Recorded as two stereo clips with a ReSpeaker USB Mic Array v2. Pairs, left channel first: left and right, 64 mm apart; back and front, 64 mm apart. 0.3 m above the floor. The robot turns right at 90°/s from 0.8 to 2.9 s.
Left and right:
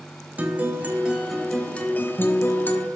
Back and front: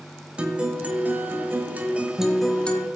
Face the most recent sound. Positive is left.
turn(degrees=135)